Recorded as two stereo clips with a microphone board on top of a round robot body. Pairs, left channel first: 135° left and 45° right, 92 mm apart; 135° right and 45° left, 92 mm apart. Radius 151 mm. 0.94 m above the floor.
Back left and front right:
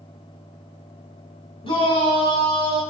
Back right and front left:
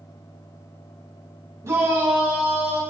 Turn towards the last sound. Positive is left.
turn(degrees=115)